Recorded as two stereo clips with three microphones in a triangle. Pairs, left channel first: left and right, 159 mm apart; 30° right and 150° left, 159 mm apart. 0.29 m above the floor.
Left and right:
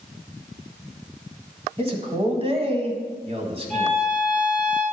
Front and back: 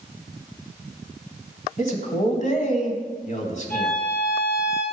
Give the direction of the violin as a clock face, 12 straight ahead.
2 o'clock.